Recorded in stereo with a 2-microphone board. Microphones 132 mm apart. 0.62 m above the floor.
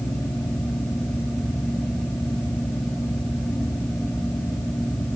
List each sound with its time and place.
Only background noise.